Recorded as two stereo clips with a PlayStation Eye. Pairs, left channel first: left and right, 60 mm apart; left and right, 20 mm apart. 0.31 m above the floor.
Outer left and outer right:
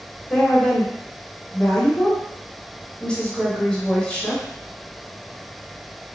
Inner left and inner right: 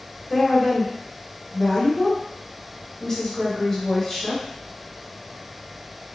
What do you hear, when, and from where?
0.3 s a woman speaking: 15° left (ahead or behind), 1.0 m